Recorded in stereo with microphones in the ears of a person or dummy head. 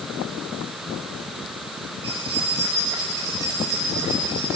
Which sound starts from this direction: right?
Keys jangling, at 2.0 s.